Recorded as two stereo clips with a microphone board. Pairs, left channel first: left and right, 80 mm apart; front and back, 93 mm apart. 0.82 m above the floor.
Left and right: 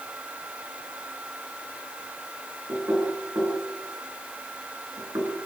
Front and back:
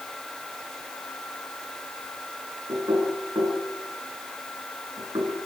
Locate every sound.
2.7 s knocking: 135° right, 6.5 m